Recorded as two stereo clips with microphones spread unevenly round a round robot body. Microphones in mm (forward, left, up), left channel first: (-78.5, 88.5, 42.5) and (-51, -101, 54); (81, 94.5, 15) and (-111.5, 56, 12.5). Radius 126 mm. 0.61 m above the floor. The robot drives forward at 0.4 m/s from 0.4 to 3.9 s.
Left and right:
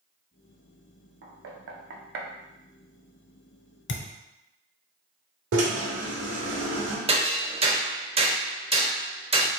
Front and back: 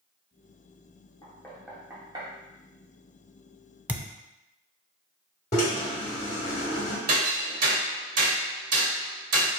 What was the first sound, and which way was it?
Knocking, 65° right.